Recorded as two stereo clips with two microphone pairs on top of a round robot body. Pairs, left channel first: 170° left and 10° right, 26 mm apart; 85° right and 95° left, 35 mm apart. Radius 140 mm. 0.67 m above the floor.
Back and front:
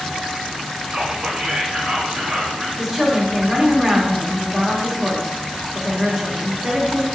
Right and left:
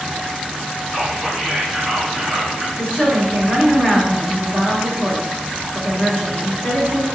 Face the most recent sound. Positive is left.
turn(degrees=-70)